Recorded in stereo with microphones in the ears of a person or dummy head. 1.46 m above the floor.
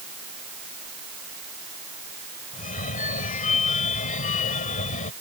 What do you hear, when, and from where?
2.5 s a phone ringing: 40° left (ahead or behind)